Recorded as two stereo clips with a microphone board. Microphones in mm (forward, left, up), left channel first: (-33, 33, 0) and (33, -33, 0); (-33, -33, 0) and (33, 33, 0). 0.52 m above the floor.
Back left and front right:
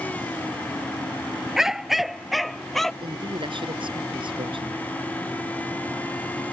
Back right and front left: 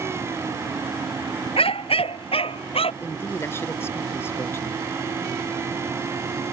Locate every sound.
1.6 s a dog barking: 130° right; by 2.9 s 140° right
3.0 s a man speaking: 70° right